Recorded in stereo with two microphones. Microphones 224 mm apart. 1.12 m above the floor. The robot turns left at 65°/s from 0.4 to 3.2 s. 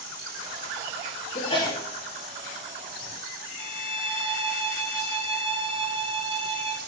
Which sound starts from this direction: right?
A violin, at 3.6 s.